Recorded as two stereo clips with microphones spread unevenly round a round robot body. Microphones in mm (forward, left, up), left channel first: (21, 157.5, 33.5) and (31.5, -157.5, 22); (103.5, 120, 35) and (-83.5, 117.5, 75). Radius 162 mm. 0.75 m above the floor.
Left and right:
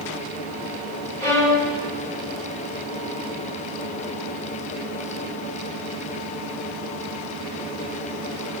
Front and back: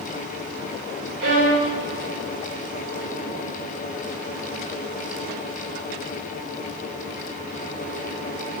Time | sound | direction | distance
1.2 | a violin | 175° left | 4 m